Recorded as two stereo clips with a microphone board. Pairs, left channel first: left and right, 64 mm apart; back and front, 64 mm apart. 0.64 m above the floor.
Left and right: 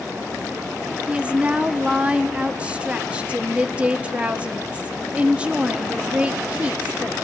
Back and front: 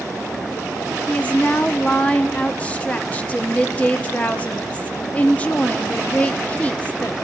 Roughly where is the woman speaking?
Behind right.